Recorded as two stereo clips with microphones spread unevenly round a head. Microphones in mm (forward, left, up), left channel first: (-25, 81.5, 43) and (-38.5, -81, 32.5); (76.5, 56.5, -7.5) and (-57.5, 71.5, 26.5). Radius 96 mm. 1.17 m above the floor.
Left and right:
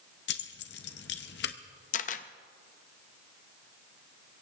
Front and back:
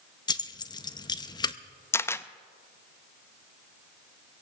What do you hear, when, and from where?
0.3 s keys jangling: 60° left, 0.7 m
1.9 s a camera shutter: 75° left, 0.5 m